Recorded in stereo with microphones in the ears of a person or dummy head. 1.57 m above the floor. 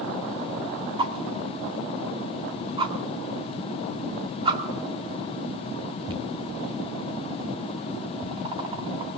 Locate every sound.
1.0 s a whoosh: 25° right (ahead or behind), 1.9 m